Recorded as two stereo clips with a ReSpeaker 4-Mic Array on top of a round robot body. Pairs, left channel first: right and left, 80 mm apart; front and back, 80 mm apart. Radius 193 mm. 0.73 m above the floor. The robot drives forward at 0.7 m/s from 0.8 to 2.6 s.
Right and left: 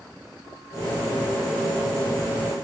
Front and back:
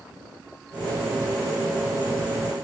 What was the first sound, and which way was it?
Only background noise.